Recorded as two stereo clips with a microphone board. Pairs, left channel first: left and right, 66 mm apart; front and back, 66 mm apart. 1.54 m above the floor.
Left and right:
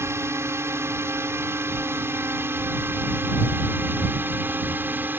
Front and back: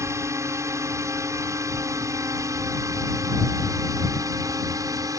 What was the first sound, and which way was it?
A drone, 135° right.